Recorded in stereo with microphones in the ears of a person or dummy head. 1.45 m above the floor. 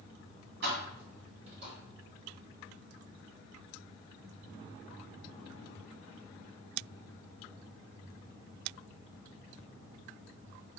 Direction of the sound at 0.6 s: 60° right (ahead or behind).